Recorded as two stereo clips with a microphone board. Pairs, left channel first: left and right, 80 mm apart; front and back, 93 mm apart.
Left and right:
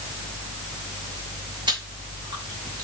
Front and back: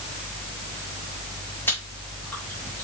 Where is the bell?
I don't hear a bell.